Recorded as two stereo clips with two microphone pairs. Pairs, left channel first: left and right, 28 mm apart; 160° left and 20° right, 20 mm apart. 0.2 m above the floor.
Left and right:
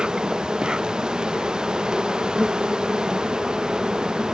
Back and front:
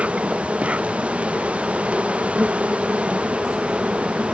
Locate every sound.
0.0 s an insect: 25° right